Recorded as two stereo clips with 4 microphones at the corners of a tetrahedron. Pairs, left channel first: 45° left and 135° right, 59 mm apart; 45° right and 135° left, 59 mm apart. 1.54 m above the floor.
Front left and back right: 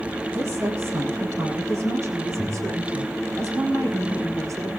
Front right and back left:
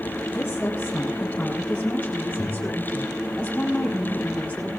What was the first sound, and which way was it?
A woman speaking, 100° right.